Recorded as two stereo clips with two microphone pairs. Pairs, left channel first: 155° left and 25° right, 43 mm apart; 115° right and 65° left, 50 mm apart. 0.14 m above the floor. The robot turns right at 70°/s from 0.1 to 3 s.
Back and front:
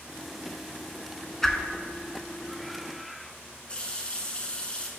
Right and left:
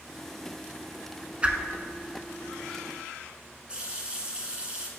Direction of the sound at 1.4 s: 80° left.